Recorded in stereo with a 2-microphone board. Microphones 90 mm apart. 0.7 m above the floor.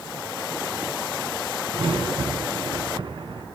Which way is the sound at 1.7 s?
70° right (ahead or behind).